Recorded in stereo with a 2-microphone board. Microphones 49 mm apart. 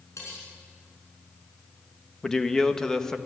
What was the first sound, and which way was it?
Cutlery clinking, 85° left.